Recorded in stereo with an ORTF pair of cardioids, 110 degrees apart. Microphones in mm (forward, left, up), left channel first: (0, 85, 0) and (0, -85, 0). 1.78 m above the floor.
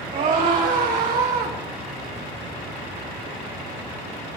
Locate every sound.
0.1 s a scream: 55° right, 5.5 m; by 1.6 s 65° right, 4 m